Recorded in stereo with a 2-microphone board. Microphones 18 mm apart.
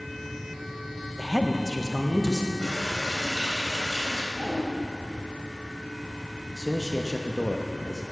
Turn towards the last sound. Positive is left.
turn(degrees=0)  # may be behind; listen again after turning